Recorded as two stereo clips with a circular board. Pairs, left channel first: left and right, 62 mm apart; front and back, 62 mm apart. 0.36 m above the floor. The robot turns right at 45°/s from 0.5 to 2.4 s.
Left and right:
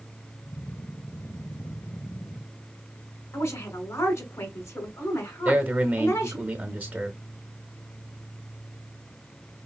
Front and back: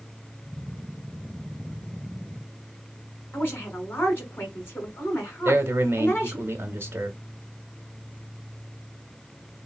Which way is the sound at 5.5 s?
145° right.